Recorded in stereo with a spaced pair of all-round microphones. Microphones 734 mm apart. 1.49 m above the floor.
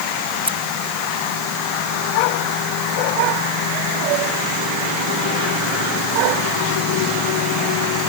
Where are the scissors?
5° right (ahead or behind).